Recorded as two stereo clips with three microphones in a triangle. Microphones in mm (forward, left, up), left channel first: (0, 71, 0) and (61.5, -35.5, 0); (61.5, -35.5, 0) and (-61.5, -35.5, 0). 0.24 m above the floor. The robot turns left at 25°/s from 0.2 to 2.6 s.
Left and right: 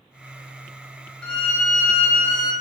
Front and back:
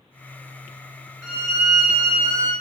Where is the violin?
175° right, 1.1 m; by 2.5 s 155° left, 1.1 m.